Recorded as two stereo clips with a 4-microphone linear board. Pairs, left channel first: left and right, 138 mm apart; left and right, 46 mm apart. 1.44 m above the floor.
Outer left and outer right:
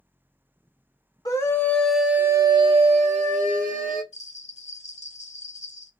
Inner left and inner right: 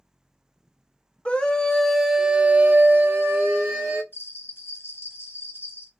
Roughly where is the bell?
Left.